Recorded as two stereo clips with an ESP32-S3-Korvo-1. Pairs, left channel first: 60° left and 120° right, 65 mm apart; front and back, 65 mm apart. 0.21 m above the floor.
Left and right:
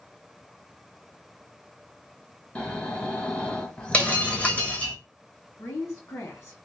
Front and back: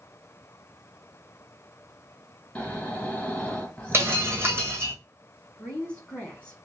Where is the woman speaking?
70° left, 2.0 m.